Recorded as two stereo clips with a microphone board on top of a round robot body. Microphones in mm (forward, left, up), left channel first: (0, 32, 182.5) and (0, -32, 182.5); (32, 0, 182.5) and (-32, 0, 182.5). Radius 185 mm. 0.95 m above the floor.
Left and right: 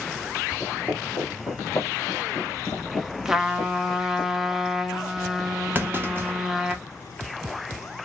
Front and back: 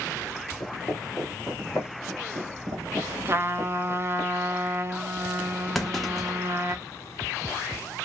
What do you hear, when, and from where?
0.6 s footsteps: 10° left, 1.0 m; by 4.2 s 140° left, 1.9 m
3.2 s a trumpet: 170° right, 0.8 m
5.8 s a clunk: 85° right, 0.9 m